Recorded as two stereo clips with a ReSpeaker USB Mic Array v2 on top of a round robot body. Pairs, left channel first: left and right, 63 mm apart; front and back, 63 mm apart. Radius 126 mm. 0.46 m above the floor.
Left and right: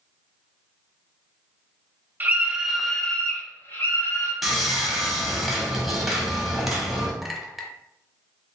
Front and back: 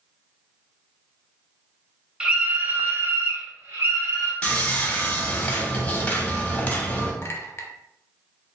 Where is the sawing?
10° right, 1.3 m.